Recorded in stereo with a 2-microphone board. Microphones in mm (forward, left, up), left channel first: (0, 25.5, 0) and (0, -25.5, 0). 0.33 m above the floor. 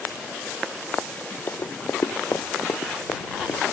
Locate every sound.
1.5 s running footsteps: 60° left (ahead or behind)